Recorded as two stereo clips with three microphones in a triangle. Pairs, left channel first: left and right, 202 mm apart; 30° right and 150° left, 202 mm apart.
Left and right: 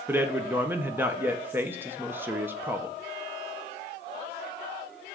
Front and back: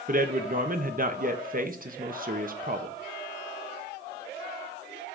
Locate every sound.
0.1 s a man speaking: 170° right, 0.9 m